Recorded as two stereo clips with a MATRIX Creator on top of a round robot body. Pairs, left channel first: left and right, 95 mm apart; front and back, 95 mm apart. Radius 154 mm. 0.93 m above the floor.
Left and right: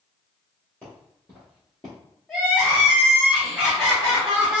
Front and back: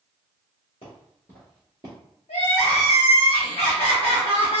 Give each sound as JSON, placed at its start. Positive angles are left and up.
{"t": 0.8, "sound": "footsteps", "azimuth_deg": 10, "distance_m": 1.1}
{"t": 2.3, "sound": "crying", "azimuth_deg": 0, "distance_m": 0.6}